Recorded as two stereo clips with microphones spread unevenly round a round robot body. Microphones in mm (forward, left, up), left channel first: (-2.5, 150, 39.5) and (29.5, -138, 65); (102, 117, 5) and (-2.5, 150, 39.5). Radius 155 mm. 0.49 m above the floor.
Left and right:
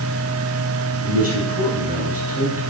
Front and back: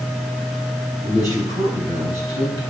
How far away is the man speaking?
About 3 m.